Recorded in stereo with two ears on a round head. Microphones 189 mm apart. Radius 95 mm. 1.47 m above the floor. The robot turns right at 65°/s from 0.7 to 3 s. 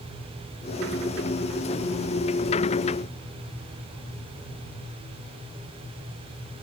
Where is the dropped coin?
No dropped coin in this recording.